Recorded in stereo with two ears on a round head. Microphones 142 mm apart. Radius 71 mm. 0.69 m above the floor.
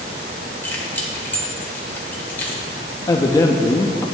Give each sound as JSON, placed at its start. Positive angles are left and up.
{"t": 0.6, "sound": "keys jangling", "side_deg": 10, "distance_m": 1.4}
{"t": 3.1, "sound": "a man speaking", "side_deg": 25, "distance_m": 0.5}